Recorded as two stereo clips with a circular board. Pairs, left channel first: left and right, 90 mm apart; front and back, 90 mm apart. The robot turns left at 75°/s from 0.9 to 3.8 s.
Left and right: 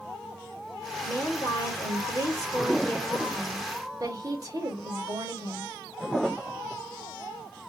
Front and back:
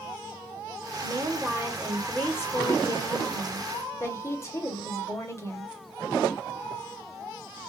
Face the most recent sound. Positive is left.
turn(degrees=-50)